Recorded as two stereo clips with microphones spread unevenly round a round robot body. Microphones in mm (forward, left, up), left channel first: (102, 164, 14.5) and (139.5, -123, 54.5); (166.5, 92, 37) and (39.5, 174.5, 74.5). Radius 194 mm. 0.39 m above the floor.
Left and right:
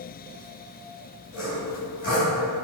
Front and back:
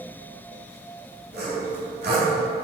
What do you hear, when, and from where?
1.3 s sawing: 155° left, 3 m